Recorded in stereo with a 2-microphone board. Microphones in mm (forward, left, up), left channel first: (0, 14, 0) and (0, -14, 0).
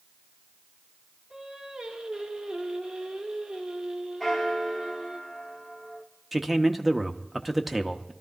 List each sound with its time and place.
1.3 s singing: 25° right (ahead or behind), 2.0 m
4.2 s a bell: 10° left (ahead or behind), 1.3 m
6.3 s a man speaking: 5° right (ahead or behind), 0.8 m